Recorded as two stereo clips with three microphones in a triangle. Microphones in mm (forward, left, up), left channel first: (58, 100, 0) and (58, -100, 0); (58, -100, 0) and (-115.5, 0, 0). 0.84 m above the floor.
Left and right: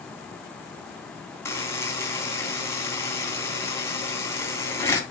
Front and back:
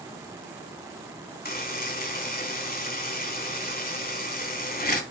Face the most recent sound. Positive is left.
turn(degrees=10)